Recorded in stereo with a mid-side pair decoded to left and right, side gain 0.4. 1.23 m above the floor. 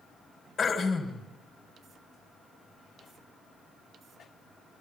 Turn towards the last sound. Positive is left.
turn(degrees=50)